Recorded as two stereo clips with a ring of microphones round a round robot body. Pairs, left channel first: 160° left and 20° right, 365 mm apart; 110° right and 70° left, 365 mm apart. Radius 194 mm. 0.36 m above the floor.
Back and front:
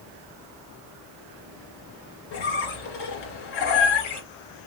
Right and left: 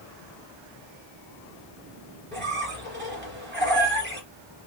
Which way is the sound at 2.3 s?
130° left.